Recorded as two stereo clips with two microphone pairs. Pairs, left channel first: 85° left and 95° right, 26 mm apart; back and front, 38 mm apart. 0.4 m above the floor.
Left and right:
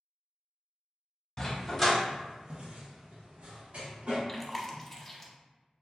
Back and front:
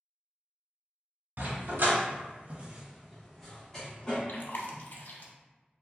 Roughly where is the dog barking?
Ahead.